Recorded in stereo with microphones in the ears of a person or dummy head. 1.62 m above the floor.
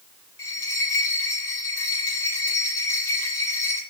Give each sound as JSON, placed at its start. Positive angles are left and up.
{"t": 0.4, "sound": "a bell", "side_deg": 20, "distance_m": 7.0}